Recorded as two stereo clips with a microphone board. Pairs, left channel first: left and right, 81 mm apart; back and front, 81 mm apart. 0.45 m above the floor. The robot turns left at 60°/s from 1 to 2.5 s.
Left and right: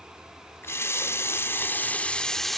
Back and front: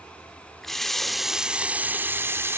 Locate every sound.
0.6 s a running tap: 95° left, 0.6 m; by 2.6 s 5° left, 0.6 m